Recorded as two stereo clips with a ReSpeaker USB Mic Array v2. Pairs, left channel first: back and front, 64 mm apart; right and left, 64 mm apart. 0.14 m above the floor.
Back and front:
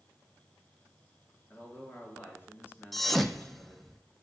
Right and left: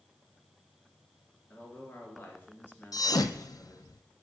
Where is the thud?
95° right, 0.5 m.